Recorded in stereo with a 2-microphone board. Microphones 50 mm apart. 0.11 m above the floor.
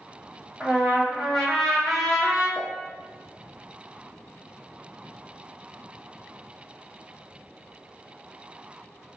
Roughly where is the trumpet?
Centre.